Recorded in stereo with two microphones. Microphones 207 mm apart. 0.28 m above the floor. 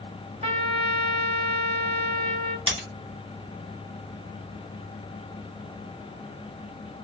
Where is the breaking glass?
25° right (ahead or behind), 1.6 m.